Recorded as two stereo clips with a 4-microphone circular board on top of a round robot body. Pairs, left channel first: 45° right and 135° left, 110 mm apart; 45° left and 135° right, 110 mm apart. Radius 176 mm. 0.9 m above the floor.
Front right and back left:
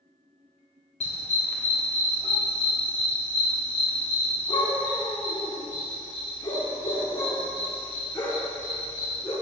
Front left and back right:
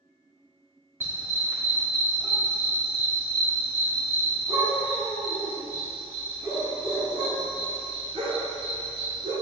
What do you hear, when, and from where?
1.0 s a dog barking: 65° right, 1.9 m; by 9.3 s 105° right, 6 m